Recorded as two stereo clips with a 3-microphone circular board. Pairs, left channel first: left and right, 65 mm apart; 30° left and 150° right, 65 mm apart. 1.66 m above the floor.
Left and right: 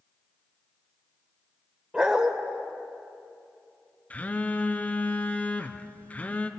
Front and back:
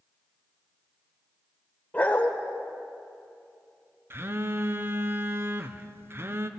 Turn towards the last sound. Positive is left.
turn(degrees=160)